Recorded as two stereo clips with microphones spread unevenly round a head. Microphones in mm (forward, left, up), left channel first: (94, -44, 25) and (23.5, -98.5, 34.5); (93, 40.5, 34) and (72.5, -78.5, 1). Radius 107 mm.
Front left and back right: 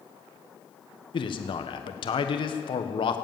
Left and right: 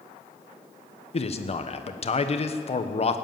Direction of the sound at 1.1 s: 40° left.